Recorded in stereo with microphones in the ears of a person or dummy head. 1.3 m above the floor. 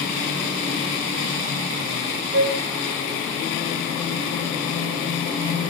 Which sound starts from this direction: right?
A flute, at 2.3 s.